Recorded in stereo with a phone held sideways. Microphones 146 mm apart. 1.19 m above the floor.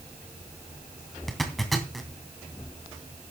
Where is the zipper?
Centre (ahead or behind), 2.5 m.